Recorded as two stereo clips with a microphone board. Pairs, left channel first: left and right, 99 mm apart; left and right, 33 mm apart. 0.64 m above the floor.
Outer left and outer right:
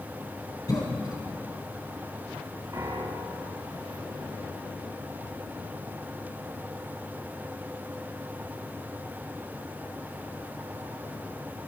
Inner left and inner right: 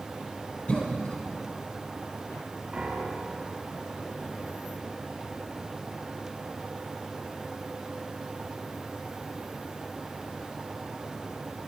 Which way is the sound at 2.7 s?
40° right (ahead or behind).